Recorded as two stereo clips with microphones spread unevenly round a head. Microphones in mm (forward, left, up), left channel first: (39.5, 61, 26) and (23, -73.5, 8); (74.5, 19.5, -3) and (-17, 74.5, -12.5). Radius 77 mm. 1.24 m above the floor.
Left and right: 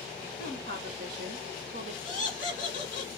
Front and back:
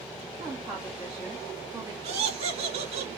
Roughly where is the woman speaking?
Behind right.